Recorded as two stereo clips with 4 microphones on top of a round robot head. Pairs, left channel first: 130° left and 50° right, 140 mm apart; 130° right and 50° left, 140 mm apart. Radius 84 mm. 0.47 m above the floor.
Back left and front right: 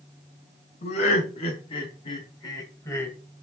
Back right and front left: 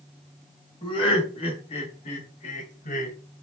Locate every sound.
0.8 s laughter: 175° left, 3.5 m; by 3.1 s 155° right, 2.5 m